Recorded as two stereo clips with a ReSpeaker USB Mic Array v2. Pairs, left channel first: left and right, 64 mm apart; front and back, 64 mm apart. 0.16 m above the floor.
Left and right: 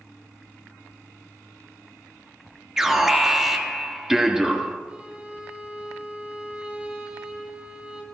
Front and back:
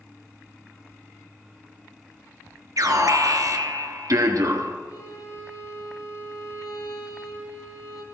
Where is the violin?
20° right, 2.5 m.